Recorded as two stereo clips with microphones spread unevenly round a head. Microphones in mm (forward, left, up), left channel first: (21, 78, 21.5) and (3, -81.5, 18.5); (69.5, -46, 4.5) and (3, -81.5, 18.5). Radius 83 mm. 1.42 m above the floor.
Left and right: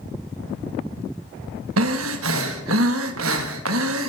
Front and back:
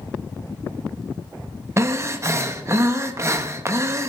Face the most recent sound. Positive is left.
turn(degrees=-100)